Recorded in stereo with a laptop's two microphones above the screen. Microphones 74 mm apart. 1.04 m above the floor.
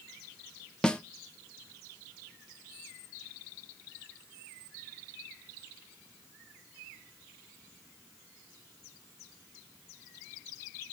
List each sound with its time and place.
0.8 s a snare drum: 10° left (ahead or behind), 0.7 m